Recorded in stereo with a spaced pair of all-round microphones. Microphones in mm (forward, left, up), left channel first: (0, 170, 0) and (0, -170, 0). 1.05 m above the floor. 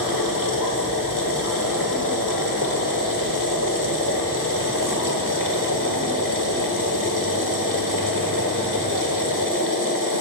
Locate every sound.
0.0 s a machine running: 65° left (ahead or behind), 1.3 m